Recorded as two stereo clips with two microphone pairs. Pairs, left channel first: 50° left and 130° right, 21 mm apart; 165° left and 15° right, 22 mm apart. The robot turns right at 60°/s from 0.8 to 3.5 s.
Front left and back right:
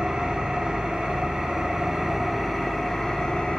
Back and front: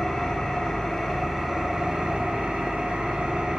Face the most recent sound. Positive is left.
turn(degrees=30)